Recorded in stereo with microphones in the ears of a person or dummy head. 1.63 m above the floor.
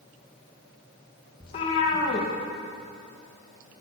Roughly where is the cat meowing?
Left.